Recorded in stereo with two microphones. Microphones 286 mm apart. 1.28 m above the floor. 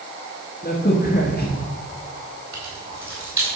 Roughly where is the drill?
I don't hear a drill.